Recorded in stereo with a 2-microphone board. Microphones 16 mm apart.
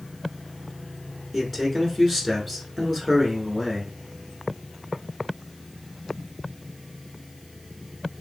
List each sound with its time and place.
1.3 s a man speaking: 5° left (ahead or behind), 1.1 m